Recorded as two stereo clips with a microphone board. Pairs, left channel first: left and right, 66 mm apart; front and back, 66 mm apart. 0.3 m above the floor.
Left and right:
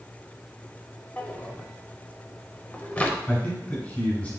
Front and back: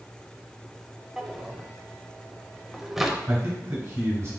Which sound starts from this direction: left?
A drawer, at 1.2 s.